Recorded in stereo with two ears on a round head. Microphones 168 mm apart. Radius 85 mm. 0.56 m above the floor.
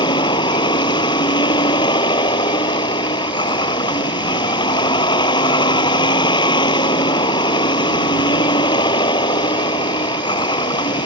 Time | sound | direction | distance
0.0 | a vehicle | 25° left (ahead or behind) | ?